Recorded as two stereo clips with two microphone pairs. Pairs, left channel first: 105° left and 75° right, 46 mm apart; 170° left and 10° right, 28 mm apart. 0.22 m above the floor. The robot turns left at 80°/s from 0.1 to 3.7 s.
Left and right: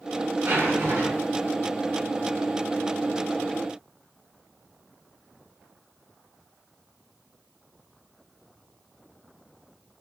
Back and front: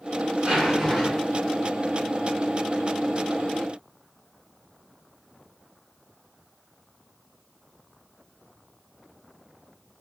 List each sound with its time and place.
0.4 s a zipper: 40° right, 1.1 m; by 1.5 s 130° right, 1.1 m